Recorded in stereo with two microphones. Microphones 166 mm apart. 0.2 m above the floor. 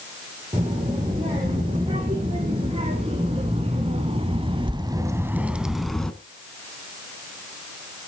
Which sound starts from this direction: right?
A child speaking, at 0.5 s.